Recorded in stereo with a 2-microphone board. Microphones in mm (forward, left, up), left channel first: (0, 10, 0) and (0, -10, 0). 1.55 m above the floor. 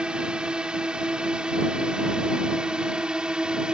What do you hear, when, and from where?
0.0 s a drone: 50° right (ahead or behind); by 3.7 s 45° right (ahead or behind)